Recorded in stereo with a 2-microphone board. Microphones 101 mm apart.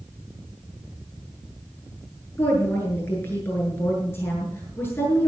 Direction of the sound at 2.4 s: 25° left (ahead or behind).